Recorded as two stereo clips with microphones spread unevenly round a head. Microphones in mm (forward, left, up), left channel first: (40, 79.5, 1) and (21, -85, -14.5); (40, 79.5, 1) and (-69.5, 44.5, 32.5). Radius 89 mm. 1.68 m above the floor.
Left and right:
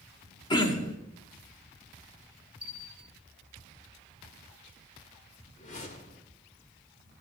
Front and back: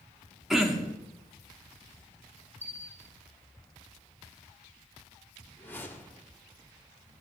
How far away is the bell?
About 0.9 m.